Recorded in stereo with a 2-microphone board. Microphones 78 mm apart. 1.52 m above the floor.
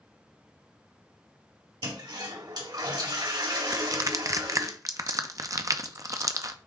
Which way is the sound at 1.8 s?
65° right (ahead or behind).